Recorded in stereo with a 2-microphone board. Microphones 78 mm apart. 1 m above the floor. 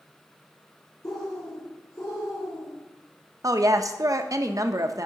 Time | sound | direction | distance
1.0 | a bird | 50° left (ahead or behind) | 4.5 m
3.4 | a woman speaking | 50° right (ahead or behind) | 0.7 m